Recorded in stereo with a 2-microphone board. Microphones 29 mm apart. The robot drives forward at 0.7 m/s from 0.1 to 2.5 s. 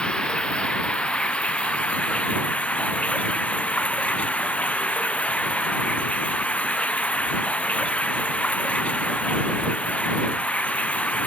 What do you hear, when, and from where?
0.0 s running water: 35° left (ahead or behind); by 11.3 s 50° left (ahead or behind)